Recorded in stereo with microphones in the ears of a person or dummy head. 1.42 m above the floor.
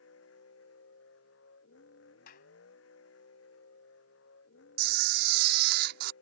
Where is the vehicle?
80° left.